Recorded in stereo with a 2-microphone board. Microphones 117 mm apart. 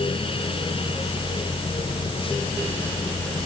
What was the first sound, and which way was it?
Only background noise.